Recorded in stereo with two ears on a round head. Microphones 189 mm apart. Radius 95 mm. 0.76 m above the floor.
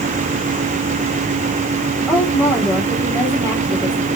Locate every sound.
2.1 s a woman speaking: 10° left (ahead or behind), 2.5 m